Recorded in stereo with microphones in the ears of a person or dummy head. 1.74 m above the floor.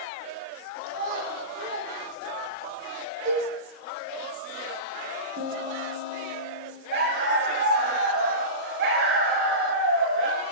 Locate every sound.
0.9 s a child speaking: 50° right (ahead or behind), 6 m; by 2.8 s 60° right (ahead or behind), 7.5 m
3.2 s a cowbell: 40° right (ahead or behind), 8.5 m
5.4 s a piano: 60° right (ahead or behind), 3.5 m
6.9 s a dog barking: 65° right (ahead or behind), 3 m